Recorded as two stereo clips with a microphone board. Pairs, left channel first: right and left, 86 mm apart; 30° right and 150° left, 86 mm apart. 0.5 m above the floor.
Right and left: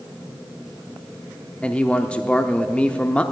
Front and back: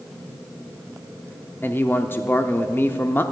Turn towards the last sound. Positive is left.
turn(degrees=-35)